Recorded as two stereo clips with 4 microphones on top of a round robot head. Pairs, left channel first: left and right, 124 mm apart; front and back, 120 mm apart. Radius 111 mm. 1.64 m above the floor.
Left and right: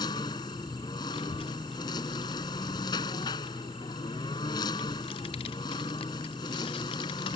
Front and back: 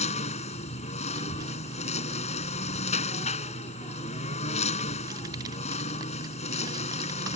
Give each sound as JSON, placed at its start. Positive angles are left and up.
{"t": 0.0, "sound": "a lawn mower", "azimuth_deg": 20}
{"t": 1.1, "sound": "a child speaking", "azimuth_deg": 125}